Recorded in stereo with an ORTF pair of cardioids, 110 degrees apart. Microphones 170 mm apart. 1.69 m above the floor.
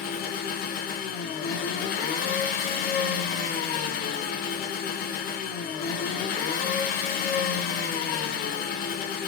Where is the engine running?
60° left, 0.8 m.